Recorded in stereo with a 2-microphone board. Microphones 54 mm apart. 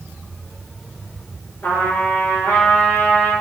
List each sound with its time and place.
1.6 s a trumpet: 45° left (ahead or behind), 1.4 m